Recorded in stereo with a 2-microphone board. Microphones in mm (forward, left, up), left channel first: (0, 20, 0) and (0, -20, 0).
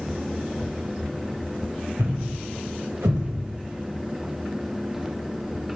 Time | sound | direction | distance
2.0 | a thud | 80° right | 4 m